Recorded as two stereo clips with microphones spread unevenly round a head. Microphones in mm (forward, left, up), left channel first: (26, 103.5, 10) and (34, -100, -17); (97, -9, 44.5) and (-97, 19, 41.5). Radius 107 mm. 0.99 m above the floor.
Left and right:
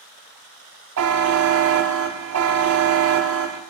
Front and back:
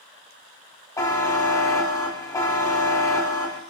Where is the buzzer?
80° right, 1.1 m.